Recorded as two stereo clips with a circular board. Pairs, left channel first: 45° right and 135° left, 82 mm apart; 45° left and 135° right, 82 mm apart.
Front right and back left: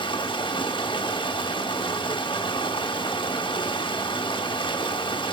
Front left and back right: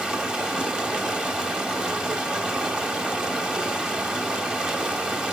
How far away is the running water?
About 1.0 m.